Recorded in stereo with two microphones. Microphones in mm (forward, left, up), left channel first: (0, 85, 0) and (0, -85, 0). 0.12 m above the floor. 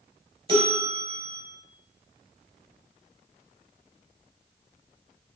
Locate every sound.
0.5 s a bell: 35° right (ahead or behind), 1.3 m